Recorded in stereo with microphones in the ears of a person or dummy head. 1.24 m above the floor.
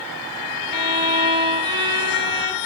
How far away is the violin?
About 0.7 m.